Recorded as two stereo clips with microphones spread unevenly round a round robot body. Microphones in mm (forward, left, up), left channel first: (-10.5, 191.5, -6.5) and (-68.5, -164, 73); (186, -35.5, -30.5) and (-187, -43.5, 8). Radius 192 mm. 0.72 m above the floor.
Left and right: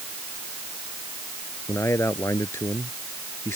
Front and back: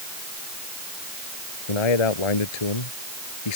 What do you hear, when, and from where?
1.7 s a man speaking: 5° right